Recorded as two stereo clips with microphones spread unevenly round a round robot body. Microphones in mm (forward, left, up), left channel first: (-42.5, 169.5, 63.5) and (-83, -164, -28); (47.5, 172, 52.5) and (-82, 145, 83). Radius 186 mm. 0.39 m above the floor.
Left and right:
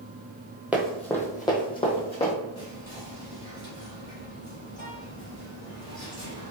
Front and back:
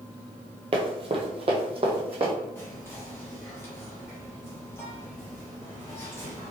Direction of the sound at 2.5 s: 10° right.